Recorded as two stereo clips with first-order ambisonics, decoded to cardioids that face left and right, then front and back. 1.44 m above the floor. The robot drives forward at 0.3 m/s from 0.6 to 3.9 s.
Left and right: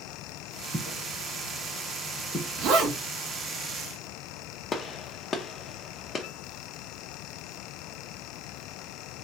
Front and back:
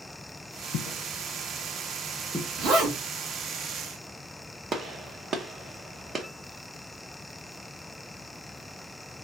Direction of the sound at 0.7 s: 10° right.